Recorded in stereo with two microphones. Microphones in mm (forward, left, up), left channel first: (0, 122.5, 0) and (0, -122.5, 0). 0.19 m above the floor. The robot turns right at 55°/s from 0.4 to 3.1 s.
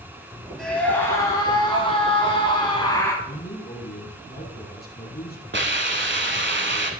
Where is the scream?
Centre (ahead or behind), 1.0 m; by 3.1 s 15° left (ahead or behind), 1.0 m.